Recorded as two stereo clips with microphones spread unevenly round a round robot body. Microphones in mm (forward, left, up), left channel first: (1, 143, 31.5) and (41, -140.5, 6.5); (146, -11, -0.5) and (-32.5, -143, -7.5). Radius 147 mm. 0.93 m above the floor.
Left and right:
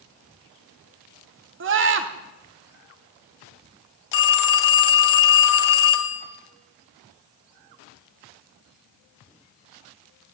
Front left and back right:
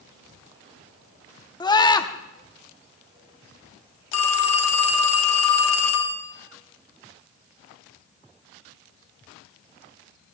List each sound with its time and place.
1.6 s a scream: 35° right, 1.6 m
4.1 s a phone ringing: 75° left, 1.3 m